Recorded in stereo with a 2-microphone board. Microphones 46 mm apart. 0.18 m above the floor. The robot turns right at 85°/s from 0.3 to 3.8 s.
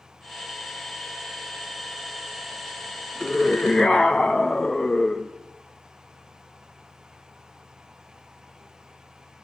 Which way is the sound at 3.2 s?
20° left (ahead or behind).